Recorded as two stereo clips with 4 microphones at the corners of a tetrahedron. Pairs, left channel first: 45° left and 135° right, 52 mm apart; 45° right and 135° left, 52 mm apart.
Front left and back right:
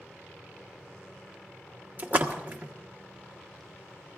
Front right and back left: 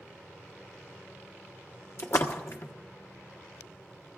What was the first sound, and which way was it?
A splash, 75° right.